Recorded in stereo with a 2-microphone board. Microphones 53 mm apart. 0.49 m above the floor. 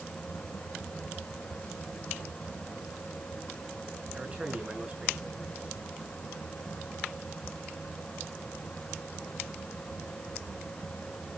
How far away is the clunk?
I don't hear a clunk.